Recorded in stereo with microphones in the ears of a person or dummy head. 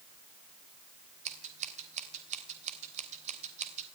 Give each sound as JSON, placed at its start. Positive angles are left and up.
{"t": 1.2, "sound": "scissors", "side_deg": -45, "distance_m": 3.0}